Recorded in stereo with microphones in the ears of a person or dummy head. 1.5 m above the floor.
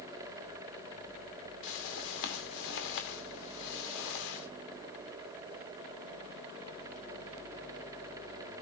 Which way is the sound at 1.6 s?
70° left (ahead or behind).